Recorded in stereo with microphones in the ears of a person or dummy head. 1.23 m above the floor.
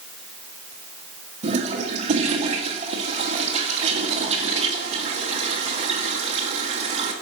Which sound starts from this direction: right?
A toilet flushing, at 1.4 s.